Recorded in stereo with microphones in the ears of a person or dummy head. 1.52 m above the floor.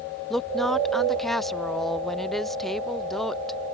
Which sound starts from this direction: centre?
A woman speaking, at 0.3 s.